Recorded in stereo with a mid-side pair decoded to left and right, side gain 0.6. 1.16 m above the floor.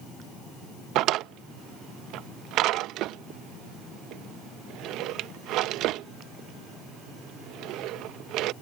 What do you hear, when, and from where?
0.9 s a drawer: 65° right